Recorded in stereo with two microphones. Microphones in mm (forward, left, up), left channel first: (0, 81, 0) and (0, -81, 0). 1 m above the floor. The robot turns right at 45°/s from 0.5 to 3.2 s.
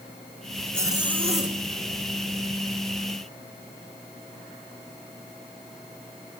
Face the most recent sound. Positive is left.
turn(degrees=-55)